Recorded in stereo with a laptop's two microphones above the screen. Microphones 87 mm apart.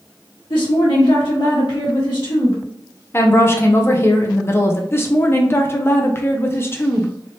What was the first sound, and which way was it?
A woman speaking, 80° left.